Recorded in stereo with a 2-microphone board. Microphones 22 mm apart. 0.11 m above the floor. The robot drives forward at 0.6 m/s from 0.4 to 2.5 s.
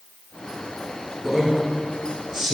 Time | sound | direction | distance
1.2 | a man speaking | 10° right (ahead or behind) | 2.5 m